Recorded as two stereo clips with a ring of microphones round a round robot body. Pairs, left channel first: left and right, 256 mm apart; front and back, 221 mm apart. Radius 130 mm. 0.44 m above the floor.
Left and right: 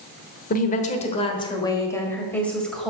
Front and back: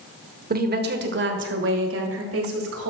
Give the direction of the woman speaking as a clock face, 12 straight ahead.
7 o'clock.